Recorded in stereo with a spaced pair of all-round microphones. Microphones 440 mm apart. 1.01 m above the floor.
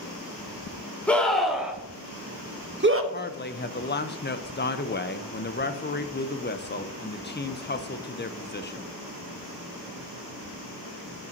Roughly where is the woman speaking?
Left.